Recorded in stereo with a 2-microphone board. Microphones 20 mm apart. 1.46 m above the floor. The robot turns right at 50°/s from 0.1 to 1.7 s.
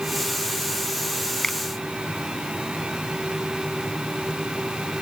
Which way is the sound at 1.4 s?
20° left (ahead or behind).